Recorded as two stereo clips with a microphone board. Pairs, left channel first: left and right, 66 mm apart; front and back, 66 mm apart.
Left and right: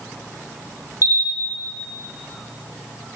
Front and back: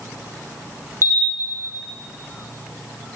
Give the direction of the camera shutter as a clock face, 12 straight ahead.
1 o'clock.